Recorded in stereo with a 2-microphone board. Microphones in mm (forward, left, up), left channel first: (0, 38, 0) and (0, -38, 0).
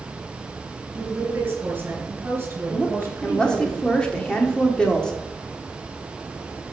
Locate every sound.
0.9 s a woman speaking: 30° right (ahead or behind), 4 m
2.7 s a woman speaking: 10° left (ahead or behind), 1.6 m